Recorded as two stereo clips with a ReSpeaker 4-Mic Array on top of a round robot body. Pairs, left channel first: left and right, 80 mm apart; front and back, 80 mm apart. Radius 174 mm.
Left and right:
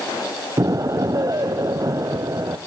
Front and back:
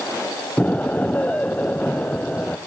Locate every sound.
0.6 s an explosion: 65° right, 0.8 m